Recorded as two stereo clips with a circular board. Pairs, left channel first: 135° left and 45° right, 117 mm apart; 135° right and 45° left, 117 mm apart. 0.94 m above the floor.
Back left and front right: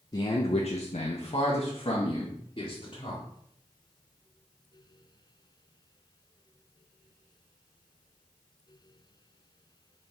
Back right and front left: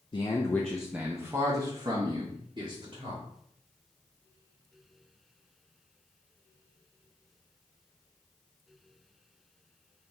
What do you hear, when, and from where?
0.1 s a man speaking: 175° right, 0.5 m; by 3.2 s 85° left, 1.7 m